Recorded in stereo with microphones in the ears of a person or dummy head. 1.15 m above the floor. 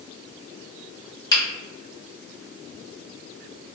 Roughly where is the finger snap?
Left.